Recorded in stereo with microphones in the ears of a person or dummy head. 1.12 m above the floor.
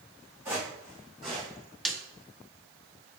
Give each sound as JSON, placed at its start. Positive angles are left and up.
{"t": 0.5, "sound": "footsteps", "side_deg": -15, "distance_m": 4.0}
{"t": 1.9, "sound": "a snare drum", "side_deg": 0, "distance_m": 0.7}